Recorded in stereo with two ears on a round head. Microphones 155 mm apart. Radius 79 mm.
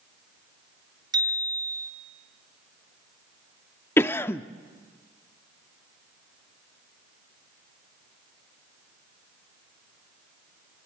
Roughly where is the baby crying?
No baby crying in this recording.